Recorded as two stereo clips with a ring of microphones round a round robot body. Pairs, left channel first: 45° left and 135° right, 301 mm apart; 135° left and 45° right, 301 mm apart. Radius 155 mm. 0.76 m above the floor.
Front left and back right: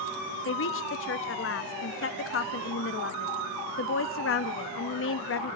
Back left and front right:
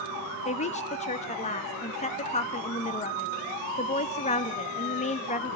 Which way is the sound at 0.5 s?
75° left.